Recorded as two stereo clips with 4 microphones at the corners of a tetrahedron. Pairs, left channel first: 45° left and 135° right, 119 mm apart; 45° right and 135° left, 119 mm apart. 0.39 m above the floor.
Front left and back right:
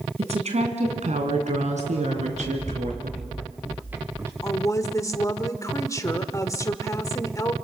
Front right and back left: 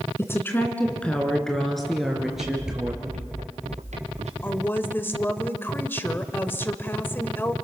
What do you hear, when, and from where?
0.2 s a woman speaking: 110° right, 3 m; by 3.1 s 140° right, 5.5 m
2.1 s running footsteps: 120° left, 3.5 m; by 4.3 s 160° left, 3 m
4.4 s a woman speaking: 10° left, 1.4 m